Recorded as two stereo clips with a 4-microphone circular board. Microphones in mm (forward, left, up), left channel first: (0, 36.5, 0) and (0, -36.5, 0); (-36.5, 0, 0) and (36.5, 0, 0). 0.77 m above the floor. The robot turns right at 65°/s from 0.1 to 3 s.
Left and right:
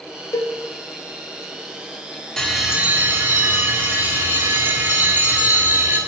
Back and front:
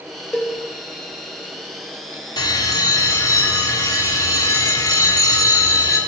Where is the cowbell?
105° left, 1.1 m; by 0.5 s 115° left, 1.1 m.